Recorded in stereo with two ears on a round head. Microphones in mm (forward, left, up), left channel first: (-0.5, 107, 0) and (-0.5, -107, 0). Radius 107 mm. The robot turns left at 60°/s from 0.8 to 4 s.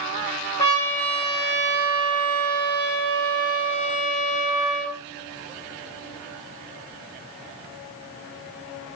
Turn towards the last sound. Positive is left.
turn(degrees=180)